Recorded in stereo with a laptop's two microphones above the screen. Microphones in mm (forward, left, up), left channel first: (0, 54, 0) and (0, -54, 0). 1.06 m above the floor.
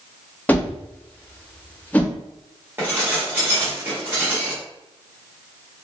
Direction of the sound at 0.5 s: 15° left (ahead or behind).